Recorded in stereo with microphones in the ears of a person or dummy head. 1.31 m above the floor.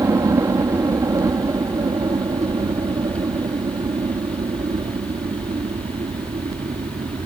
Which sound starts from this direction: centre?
A helicopter, at 0.0 s.